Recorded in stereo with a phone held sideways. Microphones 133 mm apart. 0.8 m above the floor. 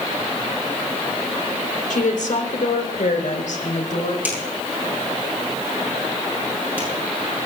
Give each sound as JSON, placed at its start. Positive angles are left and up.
{"t": 1.9, "sound": "a woman speaking", "side_deg": 75, "distance_m": 2.5}
{"t": 4.2, "sound": "a finger snap", "side_deg": -15, "distance_m": 8.0}